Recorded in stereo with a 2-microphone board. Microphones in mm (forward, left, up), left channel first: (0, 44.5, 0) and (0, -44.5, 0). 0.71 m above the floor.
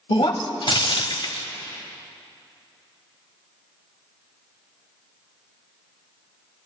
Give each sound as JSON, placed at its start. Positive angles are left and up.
{"t": 0.1, "sound": "breaking glass", "side_deg": 65, "distance_m": 0.9}